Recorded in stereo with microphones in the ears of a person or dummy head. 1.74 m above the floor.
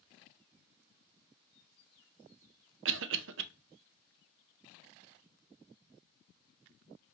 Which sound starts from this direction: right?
A cough, at 2.9 s.